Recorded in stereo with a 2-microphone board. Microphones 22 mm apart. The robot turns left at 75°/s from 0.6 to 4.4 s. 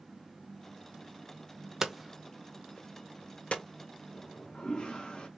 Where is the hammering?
15° right (ahead or behind), 0.7 m; by 3.6 s 55° left (ahead or behind), 0.7 m.